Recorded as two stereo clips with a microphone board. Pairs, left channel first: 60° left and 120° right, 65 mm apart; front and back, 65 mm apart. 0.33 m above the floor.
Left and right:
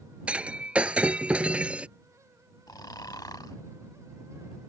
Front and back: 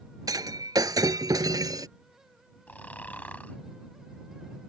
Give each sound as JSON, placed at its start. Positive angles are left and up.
{"t": 0.3, "sound": "breaking glass", "azimuth_deg": 170}
{"t": 2.7, "sound": "snoring", "azimuth_deg": 65}